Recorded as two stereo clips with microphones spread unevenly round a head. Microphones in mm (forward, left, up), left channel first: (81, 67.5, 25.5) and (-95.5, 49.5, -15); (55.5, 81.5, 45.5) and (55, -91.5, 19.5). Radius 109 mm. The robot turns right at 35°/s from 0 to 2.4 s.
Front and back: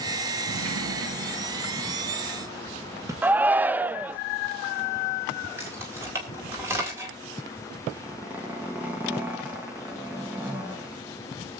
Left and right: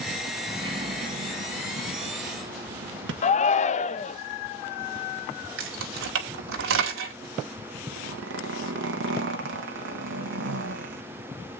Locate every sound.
0.5 s a sliding door: 165° right, 1.5 m; by 3.1 s 95° right, 1.5 m
3.2 s a shout: 130° left, 0.5 m
5.6 s keys jangling: 90° right, 1.9 m
7.9 s a zipper: 90° right, 1.4 m